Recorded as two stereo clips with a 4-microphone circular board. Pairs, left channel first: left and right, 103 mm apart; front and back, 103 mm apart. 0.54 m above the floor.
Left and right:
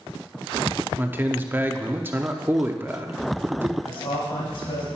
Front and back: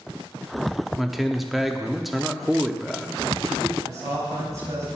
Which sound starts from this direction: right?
A man speaking, at 0.9 s.